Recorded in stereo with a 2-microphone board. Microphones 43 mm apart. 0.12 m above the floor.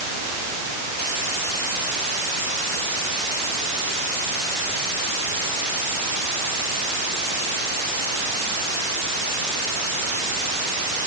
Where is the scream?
No scream in this recording.